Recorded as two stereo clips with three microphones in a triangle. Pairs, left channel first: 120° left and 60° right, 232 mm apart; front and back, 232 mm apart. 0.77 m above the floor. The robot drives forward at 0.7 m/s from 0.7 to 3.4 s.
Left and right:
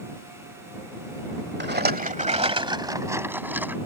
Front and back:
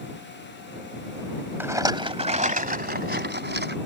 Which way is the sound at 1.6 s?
100° right.